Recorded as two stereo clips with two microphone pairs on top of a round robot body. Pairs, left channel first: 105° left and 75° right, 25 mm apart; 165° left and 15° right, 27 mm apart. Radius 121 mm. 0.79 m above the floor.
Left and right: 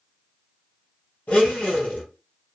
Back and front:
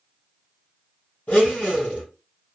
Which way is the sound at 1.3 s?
135° left.